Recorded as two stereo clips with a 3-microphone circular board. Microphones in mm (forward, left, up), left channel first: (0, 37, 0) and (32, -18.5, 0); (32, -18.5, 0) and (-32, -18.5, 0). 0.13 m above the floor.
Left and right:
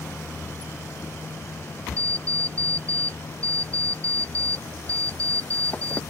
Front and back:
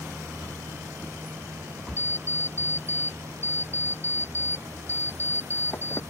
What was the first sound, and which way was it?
An alarm clock, 55° left.